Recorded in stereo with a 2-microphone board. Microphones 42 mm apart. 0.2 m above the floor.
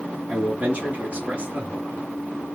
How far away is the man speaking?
About 1.9 m.